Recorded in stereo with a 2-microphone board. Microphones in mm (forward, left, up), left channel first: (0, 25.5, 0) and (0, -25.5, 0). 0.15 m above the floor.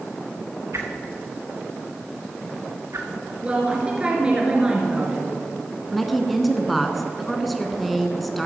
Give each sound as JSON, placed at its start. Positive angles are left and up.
{"t": 0.7, "sound": "a whoosh", "side_deg": -70, "distance_m": 2.0}
{"t": 3.4, "sound": "a woman speaking", "side_deg": -20, "distance_m": 3.0}
{"t": 5.9, "sound": "a woman speaking", "side_deg": 0, "distance_m": 1.4}